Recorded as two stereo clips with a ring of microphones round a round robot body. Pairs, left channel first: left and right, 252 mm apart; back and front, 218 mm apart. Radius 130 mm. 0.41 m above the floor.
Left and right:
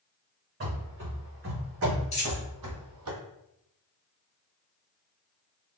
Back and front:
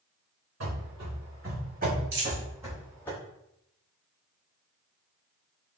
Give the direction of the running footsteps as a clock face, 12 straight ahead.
1 o'clock.